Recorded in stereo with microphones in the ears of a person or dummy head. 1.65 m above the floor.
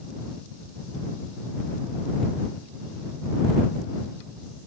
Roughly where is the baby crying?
I don't hear a baby crying.